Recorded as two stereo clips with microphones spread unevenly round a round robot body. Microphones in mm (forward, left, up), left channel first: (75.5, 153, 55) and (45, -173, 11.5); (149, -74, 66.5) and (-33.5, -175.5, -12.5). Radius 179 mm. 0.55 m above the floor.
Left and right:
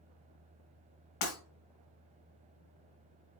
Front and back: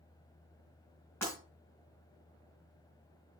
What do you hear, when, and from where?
1.2 s breaking glass: 115° left, 3.5 m